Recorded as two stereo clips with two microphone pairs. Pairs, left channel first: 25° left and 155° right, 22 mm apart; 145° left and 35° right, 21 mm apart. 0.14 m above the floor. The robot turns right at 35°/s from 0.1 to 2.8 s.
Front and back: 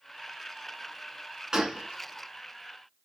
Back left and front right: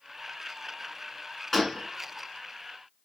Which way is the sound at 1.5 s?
140° right.